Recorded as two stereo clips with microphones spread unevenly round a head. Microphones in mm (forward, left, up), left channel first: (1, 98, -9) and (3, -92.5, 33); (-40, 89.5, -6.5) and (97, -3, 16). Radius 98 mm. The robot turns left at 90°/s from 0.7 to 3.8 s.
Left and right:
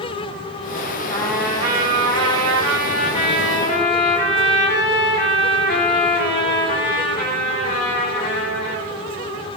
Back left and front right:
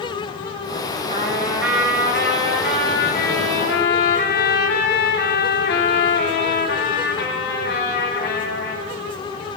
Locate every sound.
1.1 s a trumpet: 20° left, 8.5 m; by 8.8 s 135° left, 8.5 m